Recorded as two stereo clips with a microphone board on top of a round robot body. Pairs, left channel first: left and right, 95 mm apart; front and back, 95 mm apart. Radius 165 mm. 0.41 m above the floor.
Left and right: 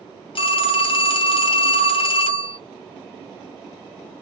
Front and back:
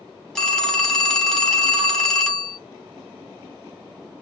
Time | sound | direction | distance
0.3 | a phone ringing | 80° left | 1.2 m